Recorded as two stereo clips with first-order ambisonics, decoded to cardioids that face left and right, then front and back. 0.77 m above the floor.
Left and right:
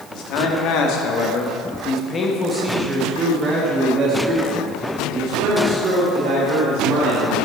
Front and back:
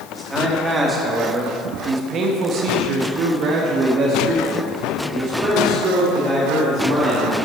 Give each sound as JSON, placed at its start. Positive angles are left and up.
{"t": 0.1, "sound": "a man speaking", "azimuth_deg": 95, "distance_m": 1.8}